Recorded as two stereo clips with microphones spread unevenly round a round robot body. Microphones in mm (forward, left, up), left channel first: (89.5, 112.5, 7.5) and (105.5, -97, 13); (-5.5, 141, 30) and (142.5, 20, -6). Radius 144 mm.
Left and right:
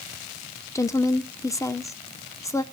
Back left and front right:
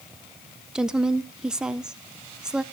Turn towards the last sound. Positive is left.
turn(degrees=30)